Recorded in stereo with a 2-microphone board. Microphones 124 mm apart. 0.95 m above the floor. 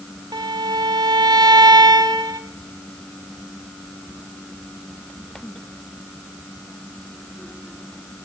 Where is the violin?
35° right (ahead or behind), 0.9 m.